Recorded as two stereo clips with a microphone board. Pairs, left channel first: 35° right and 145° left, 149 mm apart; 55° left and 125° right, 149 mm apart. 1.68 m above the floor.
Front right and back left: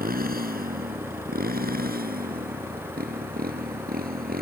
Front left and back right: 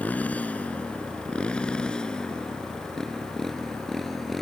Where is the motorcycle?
135° left; by 4.4 s 145° left.